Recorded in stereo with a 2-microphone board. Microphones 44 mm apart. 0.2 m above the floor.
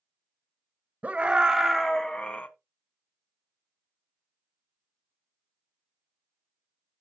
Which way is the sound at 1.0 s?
35° right (ahead or behind).